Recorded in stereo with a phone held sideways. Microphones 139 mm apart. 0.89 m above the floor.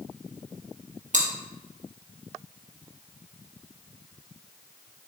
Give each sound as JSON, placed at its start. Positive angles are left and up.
{"t": 1.1, "sound": "chewing", "side_deg": -60, "distance_m": 1.6}